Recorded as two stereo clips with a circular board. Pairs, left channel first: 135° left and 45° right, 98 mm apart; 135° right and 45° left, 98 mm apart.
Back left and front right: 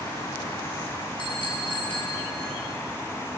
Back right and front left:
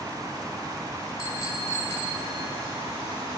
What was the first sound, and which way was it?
A bicycle bell, 175° left.